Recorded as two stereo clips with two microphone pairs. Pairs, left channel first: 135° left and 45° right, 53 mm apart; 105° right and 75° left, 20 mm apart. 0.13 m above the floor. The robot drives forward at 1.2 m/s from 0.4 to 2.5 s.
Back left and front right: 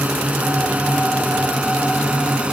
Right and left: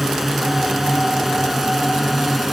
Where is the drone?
Straight ahead.